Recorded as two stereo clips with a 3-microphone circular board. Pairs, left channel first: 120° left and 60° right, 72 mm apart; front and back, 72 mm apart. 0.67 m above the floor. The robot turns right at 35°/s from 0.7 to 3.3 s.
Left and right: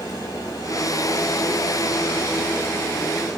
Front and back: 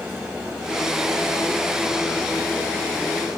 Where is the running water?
110° left, 2 m; by 3.4 s 160° right, 2 m.